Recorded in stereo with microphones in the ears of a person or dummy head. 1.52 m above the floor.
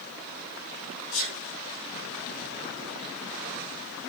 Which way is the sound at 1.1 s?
50° left (ahead or behind).